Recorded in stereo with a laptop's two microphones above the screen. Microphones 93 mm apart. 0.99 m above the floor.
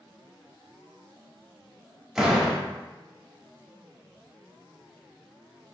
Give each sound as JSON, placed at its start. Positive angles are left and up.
{"t": 2.1, "sound": "a door slam", "side_deg": -5, "distance_m": 1.3}